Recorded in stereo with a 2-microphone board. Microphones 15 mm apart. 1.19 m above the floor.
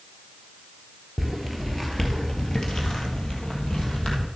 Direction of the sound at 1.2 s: 5° left (ahead or behind).